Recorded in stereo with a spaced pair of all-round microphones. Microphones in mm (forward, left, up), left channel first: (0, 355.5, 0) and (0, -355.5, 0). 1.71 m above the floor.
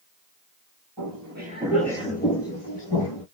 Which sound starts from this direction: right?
Footsteps, at 1.0 s.